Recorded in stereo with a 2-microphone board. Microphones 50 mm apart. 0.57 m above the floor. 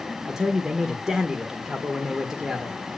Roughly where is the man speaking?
Centre.